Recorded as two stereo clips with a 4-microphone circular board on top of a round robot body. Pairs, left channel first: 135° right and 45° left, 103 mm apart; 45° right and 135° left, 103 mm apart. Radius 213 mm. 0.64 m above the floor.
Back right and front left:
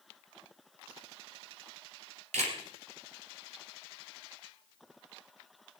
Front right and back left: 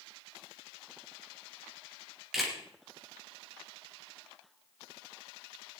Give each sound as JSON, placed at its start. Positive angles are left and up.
{"t": 2.3, "sound": "a camera shutter", "azimuth_deg": 45, "distance_m": 2.5}